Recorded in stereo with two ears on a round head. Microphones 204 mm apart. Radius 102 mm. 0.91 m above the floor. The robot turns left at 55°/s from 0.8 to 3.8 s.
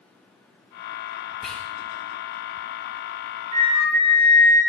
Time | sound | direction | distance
1.4 | whispering | centre (ahead or behind) | 0.6 m
3.5 | a flute | 80° right | 2.0 m